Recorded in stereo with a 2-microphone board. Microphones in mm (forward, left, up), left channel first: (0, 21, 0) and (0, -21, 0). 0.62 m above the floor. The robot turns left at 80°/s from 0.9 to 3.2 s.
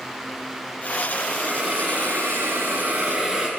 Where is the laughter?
I don't hear laughter.